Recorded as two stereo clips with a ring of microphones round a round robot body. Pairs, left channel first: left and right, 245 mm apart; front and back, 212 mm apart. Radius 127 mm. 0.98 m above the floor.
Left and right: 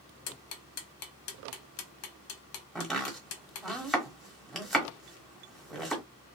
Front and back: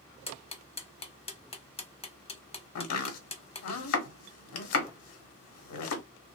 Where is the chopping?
Straight ahead, 1.1 m.